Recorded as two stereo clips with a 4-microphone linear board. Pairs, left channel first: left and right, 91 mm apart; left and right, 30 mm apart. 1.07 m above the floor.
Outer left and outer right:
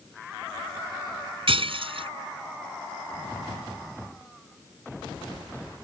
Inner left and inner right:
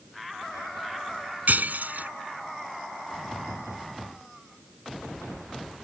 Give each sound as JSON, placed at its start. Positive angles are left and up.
{"t": 1.5, "sound": "breaking glass", "side_deg": -75}